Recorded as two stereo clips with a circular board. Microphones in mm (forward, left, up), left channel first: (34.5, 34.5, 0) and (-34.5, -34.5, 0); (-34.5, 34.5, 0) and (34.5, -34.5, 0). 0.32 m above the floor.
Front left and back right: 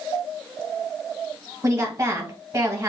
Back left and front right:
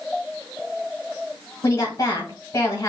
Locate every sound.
1.6 s a woman speaking: 175° right, 1.8 m